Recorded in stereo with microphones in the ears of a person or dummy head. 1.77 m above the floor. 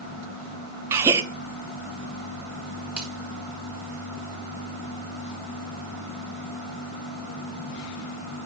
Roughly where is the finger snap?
Centre.